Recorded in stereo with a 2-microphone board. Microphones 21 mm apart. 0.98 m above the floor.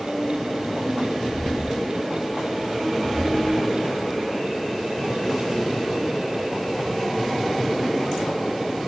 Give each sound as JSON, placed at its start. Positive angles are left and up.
{"t": 1.2, "sound": "footsteps", "side_deg": -15, "distance_m": 1.6}